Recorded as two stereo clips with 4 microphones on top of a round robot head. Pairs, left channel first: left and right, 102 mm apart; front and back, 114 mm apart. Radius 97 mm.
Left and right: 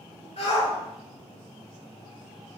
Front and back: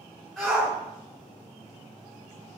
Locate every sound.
0.4 s a shout: 85° left, 3.5 m